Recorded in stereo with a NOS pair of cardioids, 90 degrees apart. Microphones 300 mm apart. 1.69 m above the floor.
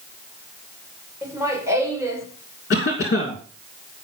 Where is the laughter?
10° right, 5.5 m.